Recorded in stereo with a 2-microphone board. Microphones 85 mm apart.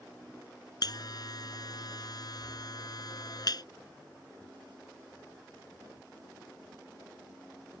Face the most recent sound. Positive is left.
turn(degrees=55)  # may be behind; listen again after turning